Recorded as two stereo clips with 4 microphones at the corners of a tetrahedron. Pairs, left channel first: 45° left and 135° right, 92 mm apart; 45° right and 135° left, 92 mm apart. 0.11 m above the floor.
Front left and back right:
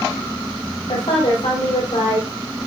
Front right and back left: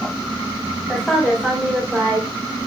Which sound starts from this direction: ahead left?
A woman speaking, at 0.9 s.